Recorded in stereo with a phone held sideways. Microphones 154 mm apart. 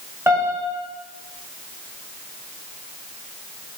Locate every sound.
0.3 s a piano: 15° right (ahead or behind), 1.4 m